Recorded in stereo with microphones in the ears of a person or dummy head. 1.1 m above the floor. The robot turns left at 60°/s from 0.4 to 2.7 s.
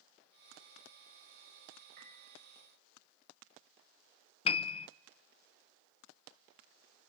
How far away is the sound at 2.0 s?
About 6.5 m.